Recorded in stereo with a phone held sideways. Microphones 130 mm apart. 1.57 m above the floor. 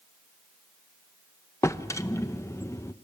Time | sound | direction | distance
1.6 | a drawer | 25° left (ahead or behind) | 0.7 m